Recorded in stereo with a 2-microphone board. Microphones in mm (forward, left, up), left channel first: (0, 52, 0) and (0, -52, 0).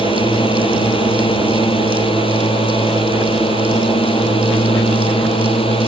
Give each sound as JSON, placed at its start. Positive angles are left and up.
{"t": 0.0, "sound": "a drone", "side_deg": 55}